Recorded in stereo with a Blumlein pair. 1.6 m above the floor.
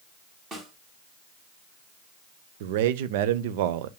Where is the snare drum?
20° right, 3 m.